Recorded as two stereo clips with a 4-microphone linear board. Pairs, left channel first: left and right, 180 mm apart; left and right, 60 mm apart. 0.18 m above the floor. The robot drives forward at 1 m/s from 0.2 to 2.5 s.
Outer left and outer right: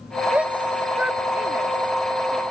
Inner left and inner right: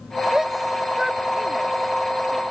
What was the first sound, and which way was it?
A shout, 5° right (ahead or behind).